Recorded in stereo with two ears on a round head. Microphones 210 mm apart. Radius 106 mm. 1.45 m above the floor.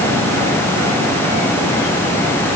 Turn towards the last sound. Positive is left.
No sound to turn to.